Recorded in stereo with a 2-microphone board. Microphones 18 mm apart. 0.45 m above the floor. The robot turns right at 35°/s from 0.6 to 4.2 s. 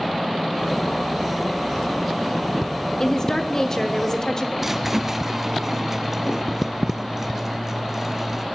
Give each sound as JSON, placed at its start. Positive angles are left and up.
{"t": 3.0, "sound": "a woman speaking", "azimuth_deg": 70, "distance_m": 1.1}
{"t": 4.6, "sound": "a squeak", "side_deg": -15, "distance_m": 0.5}